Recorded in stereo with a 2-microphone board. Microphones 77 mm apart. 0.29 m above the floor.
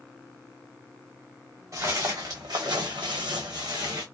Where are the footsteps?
40° right (ahead or behind), 1.3 m; by 4.0 s 55° right (ahead or behind), 1.2 m.